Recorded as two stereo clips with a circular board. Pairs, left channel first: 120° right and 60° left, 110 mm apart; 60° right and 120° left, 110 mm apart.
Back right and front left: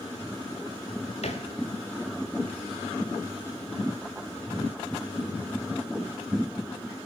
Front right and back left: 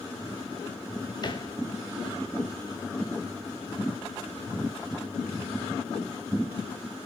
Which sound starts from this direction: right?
A thud, at 1.2 s.